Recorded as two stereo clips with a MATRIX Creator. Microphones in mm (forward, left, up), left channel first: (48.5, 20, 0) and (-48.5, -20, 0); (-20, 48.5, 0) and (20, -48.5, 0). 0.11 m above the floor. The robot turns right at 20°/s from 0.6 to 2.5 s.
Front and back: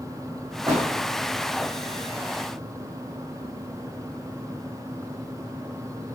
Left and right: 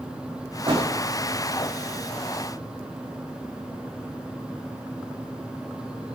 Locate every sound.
0.7 s a door slam: 105° right, 6.5 m; by 0.8 s 100° right, 6.5 m